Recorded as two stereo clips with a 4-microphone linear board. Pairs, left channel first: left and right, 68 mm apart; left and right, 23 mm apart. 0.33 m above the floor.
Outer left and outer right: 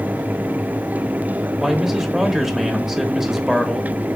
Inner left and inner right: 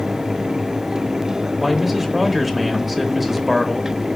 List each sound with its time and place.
1.6 s a man speaking: 5° right (ahead or behind), 0.9 m